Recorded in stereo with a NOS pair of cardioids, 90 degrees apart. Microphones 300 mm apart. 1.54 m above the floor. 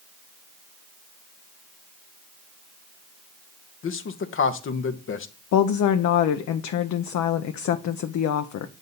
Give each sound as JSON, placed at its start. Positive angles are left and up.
{"t": 3.8, "sound": "a man speaking", "azimuth_deg": 45, "distance_m": 0.8}
{"t": 5.5, "sound": "a woman speaking", "azimuth_deg": 65, "distance_m": 0.6}